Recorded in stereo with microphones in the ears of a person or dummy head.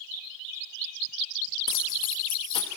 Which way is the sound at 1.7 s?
30° left (ahead or behind).